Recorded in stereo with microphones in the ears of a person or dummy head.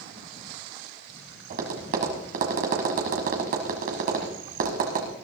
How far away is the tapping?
About 1.6 m.